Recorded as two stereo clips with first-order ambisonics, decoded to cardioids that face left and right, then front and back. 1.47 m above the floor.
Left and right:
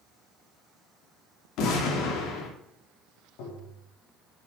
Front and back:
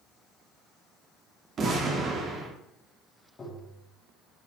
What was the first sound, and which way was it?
An explosion, 120° left.